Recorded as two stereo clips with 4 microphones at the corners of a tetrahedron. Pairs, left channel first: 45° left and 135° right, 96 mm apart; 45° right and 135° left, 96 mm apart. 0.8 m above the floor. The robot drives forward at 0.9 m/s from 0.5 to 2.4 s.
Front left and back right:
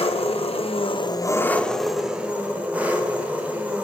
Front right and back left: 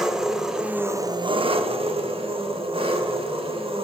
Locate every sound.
0.0 s an engine running: 50° left, 0.9 m; by 3.9 s 150° left, 1.3 m